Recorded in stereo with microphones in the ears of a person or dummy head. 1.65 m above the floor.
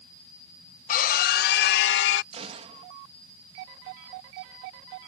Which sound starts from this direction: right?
A gunshot, at 2.3 s.